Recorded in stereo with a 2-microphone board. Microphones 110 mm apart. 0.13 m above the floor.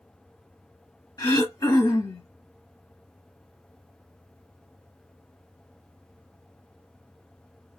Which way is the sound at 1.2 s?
30° left (ahead or behind).